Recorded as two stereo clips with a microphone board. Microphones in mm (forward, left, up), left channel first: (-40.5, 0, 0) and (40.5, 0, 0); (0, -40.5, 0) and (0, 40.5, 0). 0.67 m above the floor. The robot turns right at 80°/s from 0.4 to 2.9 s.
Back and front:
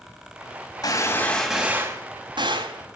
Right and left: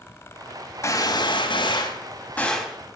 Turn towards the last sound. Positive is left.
turn(degrees=25)